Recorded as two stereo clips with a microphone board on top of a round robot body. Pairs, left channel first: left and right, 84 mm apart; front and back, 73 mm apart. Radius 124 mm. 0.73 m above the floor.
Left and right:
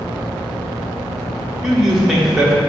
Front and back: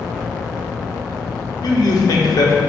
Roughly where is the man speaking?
Ahead.